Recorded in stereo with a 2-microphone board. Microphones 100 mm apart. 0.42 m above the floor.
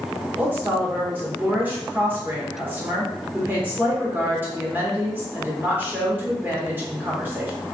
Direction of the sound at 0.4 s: 20° right (ahead or behind).